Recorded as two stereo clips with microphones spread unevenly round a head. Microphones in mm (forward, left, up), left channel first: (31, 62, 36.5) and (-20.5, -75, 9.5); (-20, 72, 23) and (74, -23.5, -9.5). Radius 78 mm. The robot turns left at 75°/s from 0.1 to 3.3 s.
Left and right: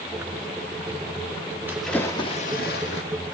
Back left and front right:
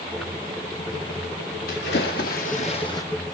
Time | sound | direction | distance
1.7 | a splash | 170° left | 2 m